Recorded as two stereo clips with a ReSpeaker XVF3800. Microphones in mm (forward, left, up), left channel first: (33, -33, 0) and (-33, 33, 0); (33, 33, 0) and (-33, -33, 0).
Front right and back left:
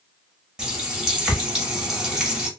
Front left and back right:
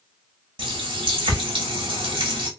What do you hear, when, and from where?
0.6 s a running tap: 145° right, 1.1 m